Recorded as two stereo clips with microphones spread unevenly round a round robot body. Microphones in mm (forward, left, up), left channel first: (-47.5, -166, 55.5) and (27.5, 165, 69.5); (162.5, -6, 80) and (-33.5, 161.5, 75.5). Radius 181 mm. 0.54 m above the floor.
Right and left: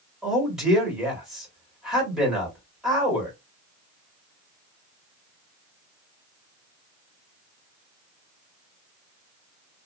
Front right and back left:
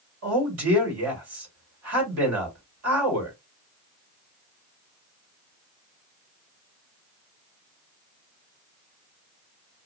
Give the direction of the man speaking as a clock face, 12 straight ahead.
6 o'clock.